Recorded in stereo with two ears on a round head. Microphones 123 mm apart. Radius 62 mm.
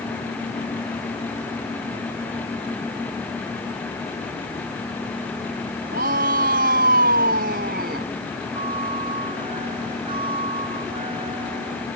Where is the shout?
70° right (ahead or behind).